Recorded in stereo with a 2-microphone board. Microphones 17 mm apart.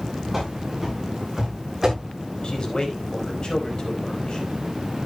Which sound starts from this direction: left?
A man speaking, at 2.4 s.